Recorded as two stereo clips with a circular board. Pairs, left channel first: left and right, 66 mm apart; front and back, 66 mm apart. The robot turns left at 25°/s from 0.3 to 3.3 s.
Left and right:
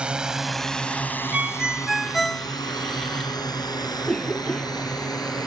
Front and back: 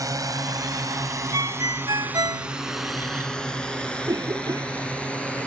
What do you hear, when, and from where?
0.0 s a drone: 165° right; by 5.5 s 70° left
1.3 s a ringtone: 160° right; by 2.5 s 170° left
4.0 s a cough: 170° left